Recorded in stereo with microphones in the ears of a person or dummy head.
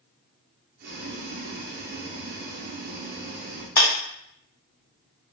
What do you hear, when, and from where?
0.8 s boiling: 50° right (ahead or behind), 0.8 m
3.8 s a clap: 15° left (ahead or behind), 0.7 m